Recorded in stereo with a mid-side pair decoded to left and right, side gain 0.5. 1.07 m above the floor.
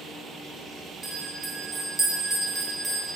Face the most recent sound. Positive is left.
turn(degrees=-25)